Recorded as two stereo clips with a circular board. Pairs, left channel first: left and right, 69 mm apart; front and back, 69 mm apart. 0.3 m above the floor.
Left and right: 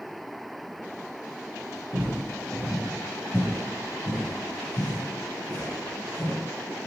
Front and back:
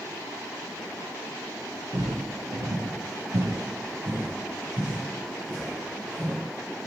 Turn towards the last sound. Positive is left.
turn(degrees=85)